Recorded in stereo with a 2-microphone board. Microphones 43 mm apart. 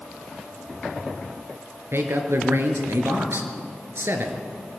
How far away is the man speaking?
About 3.5 m.